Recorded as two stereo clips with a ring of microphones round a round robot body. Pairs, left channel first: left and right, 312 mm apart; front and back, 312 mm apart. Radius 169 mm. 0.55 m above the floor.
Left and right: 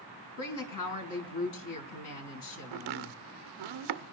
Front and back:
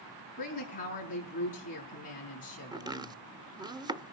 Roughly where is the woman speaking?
Left.